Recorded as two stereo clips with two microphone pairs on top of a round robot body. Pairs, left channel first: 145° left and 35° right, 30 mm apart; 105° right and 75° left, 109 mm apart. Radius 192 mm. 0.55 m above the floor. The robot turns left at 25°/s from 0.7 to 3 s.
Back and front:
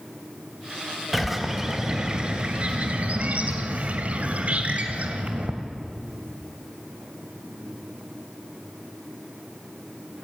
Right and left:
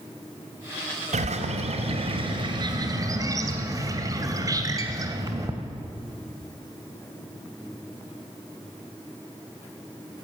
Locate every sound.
1.1 s a bird: 60° left, 2.5 m; by 5.5 s 15° left, 2.5 m